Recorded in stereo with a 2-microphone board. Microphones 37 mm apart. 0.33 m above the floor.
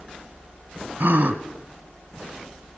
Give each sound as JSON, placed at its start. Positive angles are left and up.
{"t": 1.0, "sound": "a gasp", "side_deg": -65, "distance_m": 1.0}